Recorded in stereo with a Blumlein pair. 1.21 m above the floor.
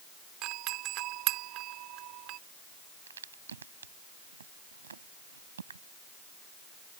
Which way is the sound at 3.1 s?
70° right.